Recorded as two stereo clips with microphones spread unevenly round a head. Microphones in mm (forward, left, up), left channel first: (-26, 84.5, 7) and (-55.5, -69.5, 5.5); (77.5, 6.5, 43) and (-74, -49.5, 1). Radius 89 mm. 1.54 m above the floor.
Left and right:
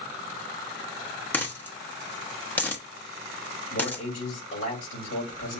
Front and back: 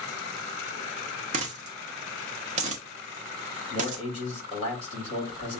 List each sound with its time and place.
1.3 s a dropped coin: 150° left, 1.0 m
3.7 s a man speaking: 80° left, 3 m